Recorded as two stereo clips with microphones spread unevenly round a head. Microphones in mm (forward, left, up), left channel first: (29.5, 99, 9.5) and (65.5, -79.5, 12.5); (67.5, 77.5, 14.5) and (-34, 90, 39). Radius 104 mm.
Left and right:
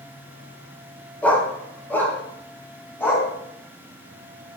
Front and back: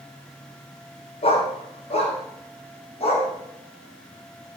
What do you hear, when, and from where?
1.2 s a dog barking: 20° left, 2.5 m